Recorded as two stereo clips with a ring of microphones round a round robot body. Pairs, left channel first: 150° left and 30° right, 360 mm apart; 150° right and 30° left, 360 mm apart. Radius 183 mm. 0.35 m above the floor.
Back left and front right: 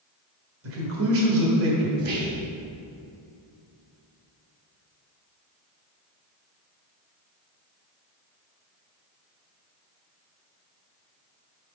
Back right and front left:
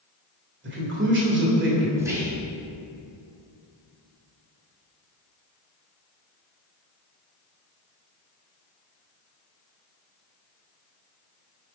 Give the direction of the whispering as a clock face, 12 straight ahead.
2 o'clock.